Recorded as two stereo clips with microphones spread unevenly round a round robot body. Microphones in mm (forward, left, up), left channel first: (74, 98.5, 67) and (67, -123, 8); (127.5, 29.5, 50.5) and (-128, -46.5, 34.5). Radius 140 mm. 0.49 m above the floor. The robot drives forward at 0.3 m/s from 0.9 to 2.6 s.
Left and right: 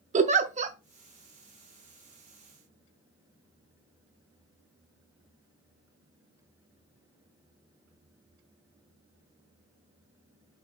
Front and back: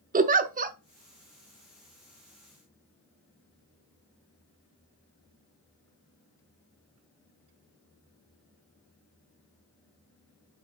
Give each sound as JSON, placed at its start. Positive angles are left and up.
{"t": 0.1, "sound": "a giggle", "azimuth_deg": -115, "distance_m": 0.8}